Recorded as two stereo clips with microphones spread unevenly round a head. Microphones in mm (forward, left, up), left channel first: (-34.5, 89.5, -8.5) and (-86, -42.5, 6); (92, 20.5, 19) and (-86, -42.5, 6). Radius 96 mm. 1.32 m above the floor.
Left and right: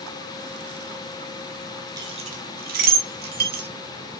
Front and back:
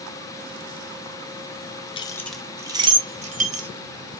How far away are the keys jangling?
About 0.5 m.